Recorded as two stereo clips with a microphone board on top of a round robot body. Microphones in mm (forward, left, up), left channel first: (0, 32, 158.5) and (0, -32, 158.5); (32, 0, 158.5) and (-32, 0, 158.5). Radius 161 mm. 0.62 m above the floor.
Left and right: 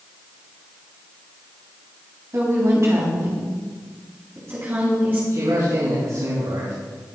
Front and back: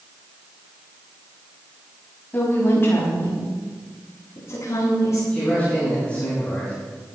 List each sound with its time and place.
2.3 s a woman speaking: 55° right, 5.5 m; by 5.2 s 40° right, 7 m
5.3 s a man speaking: 70° right, 7 m